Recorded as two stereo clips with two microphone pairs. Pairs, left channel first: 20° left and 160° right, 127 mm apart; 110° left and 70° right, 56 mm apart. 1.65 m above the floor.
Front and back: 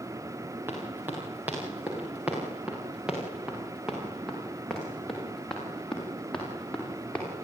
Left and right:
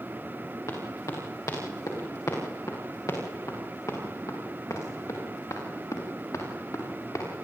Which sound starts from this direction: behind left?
Running footsteps, at 0.7 s.